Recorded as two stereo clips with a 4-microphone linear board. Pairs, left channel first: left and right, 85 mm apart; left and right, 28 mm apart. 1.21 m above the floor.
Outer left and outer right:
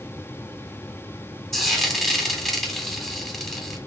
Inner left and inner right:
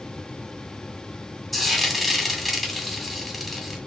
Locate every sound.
1.5 s frying: 5° left (ahead or behind), 2.0 m